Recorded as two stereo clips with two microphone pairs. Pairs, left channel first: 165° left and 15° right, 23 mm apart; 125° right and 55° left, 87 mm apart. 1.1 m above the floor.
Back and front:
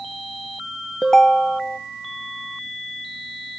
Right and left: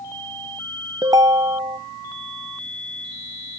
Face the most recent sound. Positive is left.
turn(degrees=95)